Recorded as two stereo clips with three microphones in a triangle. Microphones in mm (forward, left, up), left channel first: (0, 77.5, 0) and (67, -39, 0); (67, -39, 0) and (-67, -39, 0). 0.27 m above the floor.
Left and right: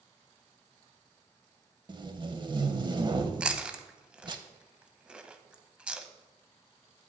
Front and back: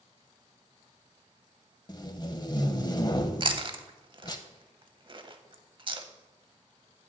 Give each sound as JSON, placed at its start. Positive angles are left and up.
{"t": 1.9, "sound": "tape being pulled", "azimuth_deg": -35, "distance_m": 0.6}
{"t": 3.4, "sound": "chewing", "azimuth_deg": -140, "distance_m": 0.6}